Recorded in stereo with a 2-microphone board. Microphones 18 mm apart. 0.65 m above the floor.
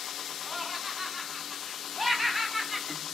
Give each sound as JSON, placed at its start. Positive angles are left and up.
{"t": 0.4, "sound": "laughter", "side_deg": -5, "distance_m": 5.0}